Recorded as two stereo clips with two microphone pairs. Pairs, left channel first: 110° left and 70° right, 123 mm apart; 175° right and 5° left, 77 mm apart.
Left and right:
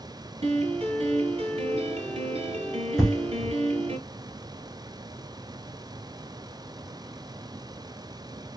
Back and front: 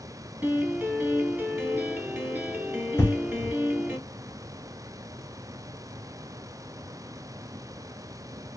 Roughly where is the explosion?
Behind right.